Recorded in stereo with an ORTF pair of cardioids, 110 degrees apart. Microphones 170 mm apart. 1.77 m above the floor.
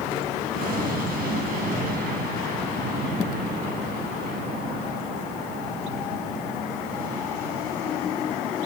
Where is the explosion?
60° right, 8.5 m.